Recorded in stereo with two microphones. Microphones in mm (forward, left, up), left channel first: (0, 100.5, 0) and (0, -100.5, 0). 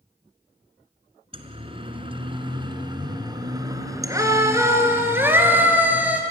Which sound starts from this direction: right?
A siren, at 1.3 s.